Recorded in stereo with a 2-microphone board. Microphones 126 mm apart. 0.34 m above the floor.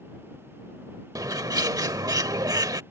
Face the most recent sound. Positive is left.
turn(degrees=-30)  # may be behind; listen again after turning